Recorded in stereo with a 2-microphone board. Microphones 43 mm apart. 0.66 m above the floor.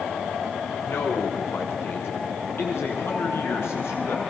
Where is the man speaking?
80° left, 6.5 m.